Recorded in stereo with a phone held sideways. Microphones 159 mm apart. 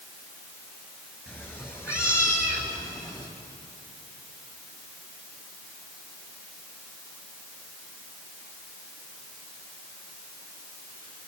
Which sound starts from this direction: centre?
A cat meowing, at 1.3 s.